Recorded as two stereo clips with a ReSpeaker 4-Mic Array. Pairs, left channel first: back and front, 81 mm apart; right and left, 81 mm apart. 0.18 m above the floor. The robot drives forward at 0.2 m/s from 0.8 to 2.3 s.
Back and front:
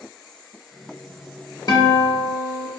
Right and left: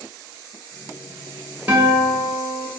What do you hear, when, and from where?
1.7 s a guitar: 160° left, 0.7 m; by 2.7 s 165° left, 0.8 m